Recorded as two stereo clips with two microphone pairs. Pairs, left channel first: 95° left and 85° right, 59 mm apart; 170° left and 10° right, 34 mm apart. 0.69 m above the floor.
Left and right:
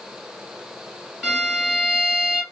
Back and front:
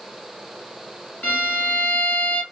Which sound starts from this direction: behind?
A violin, at 1.2 s.